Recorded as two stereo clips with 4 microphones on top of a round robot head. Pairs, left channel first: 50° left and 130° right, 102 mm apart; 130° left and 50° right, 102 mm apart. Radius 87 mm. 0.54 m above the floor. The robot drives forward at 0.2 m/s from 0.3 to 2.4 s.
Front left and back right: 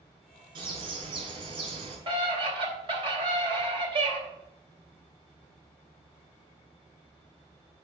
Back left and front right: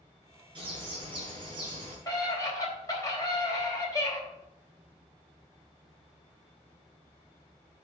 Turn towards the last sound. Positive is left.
turn(degrees=-170)